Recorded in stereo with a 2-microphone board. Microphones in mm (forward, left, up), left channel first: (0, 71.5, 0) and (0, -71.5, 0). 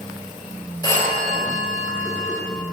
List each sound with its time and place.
0.8 s a phone ringing: 25° left (ahead or behind), 2.5 m